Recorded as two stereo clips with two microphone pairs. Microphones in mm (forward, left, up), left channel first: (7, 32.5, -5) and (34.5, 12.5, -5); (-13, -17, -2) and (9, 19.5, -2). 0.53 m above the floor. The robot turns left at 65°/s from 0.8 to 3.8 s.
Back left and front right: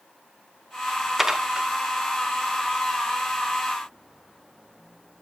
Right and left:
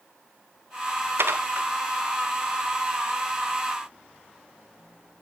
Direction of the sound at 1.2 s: 45° left.